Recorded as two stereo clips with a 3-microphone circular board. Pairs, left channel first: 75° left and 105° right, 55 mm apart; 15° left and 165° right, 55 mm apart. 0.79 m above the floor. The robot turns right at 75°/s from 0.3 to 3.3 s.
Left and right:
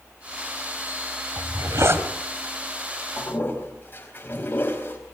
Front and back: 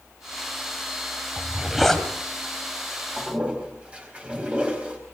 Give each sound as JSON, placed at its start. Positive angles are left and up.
{"t": 1.4, "sound": "a zipper", "azimuth_deg": -110, "distance_m": 1.9}
{"t": 3.2, "sound": "a toilet flushing", "azimuth_deg": 115, "distance_m": 5.0}